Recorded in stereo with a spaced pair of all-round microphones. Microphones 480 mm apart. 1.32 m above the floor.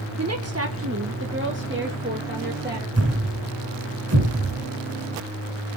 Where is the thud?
35° right (ahead or behind), 1.6 m.